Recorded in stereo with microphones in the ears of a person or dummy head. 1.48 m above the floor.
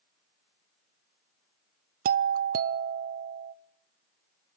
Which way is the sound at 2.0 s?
45° right (ahead or behind).